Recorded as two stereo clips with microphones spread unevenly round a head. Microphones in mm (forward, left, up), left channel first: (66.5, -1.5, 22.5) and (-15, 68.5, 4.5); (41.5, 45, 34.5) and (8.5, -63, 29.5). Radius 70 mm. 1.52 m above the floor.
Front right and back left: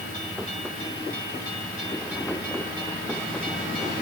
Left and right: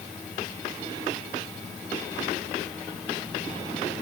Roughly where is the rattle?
I don't hear a rattle.